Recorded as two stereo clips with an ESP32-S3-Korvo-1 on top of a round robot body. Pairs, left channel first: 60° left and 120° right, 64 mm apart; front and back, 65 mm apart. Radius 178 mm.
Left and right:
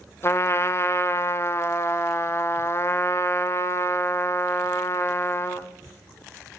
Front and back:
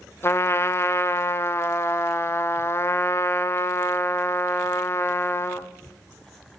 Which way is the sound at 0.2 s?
30° left.